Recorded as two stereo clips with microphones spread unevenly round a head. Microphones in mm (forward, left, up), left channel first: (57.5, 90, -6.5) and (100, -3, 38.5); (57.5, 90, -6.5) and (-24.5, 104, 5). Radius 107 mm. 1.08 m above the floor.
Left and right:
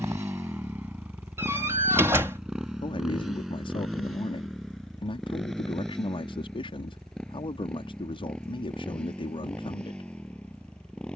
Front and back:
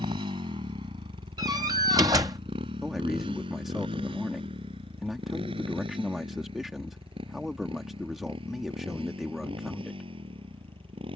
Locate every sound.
0.0 s a motorcycle: 140° right; by 11.2 s 160° right
1.4 s a door slam: 130° right
2.8 s a man speaking: 85° left